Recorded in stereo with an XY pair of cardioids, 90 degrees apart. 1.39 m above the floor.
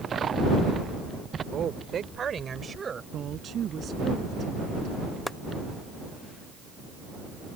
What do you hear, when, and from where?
1.5 s a woman speaking: 65° right; by 3.0 s 40° right
3.1 s a woman speaking: 60° right
5.3 s chopping: straight ahead